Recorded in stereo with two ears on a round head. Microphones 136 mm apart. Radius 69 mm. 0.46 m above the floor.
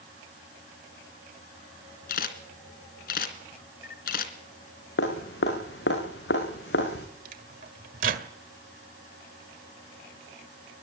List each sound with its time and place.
2.1 s a camera shutter: 70° left (ahead or behind), 2.5 m
5.0 s dripping: 85° left, 7 m
7.2 s a microwave: 60° right (ahead or behind), 1.8 m